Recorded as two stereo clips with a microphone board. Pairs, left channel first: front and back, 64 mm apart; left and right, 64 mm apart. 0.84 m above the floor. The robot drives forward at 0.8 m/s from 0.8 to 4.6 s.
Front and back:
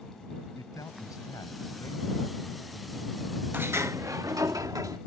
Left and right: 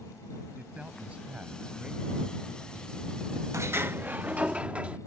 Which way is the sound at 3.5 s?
125° right.